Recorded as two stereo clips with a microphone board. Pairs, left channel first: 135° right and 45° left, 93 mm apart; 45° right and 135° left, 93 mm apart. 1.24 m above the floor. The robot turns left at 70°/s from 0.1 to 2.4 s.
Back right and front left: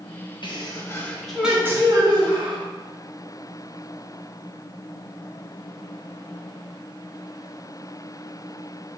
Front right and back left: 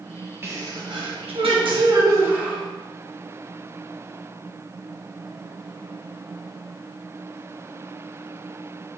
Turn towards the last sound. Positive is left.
turn(degrees=60)